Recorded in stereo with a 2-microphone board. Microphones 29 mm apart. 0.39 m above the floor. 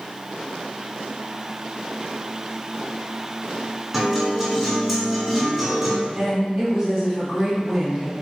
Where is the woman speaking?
Centre (ahead or behind), 1.9 m.